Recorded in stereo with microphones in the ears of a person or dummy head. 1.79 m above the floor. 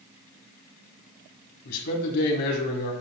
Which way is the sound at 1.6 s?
60° left (ahead or behind).